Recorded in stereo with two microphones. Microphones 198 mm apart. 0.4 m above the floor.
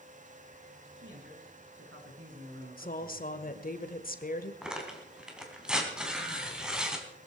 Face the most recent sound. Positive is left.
turn(degrees=-5)  # may be behind; listen again after turning